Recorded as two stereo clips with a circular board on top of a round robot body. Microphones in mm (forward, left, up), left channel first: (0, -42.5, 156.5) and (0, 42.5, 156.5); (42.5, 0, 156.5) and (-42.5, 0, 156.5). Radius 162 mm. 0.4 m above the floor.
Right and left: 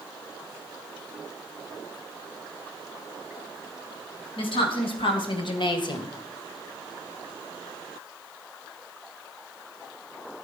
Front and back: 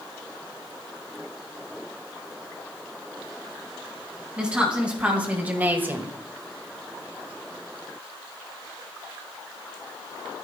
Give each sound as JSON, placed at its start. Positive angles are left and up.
{"t": 4.4, "sound": "a woman speaking", "azimuth_deg": -100, "distance_m": 4.0}